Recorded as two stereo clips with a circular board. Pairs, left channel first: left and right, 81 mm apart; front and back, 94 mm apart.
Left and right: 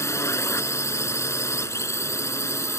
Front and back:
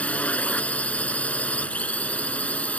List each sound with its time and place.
0.0 s a drone: 65° left